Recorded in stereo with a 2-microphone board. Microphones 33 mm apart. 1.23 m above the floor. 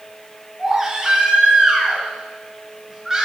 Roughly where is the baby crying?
Centre.